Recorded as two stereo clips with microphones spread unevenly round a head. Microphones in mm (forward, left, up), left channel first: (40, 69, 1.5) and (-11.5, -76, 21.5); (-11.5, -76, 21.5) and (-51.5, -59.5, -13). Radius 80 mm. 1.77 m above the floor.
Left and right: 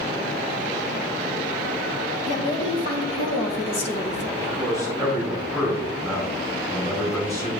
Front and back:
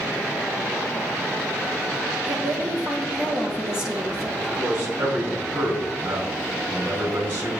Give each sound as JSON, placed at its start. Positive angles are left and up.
{"t": 2.3, "sound": "a woman speaking", "azimuth_deg": 125, "distance_m": 2.0}
{"t": 4.4, "sound": "a man speaking", "azimuth_deg": 140, "distance_m": 3.5}